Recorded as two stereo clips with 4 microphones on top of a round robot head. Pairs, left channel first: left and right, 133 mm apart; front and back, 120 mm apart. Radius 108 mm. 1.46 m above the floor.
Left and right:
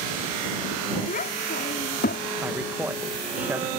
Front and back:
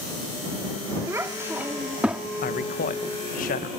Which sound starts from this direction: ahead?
A man speaking, at 2.4 s.